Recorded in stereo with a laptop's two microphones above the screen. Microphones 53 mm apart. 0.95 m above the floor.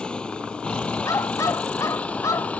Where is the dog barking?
75° left (ahead or behind).